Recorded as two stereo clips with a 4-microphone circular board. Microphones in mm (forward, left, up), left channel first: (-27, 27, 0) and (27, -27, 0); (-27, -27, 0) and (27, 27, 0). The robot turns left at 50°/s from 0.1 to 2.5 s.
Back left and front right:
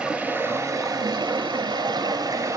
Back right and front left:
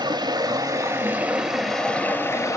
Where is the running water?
35° left, 0.9 m; by 2.6 s 85° right, 0.9 m.